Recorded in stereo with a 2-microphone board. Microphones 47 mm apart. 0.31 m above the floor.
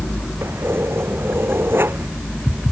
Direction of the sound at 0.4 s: 60° right (ahead or behind).